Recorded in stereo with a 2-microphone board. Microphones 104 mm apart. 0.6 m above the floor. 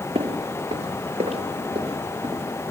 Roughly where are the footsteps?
Right.